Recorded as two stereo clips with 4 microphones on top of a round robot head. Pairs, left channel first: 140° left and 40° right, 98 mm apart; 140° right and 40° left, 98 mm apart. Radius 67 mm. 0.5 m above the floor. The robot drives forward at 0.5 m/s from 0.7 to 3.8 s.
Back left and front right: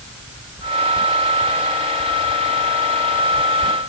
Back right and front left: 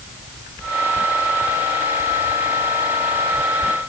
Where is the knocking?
I don't hear knocking.